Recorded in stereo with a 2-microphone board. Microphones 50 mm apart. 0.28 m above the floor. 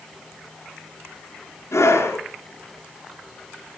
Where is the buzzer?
I don't hear a buzzer.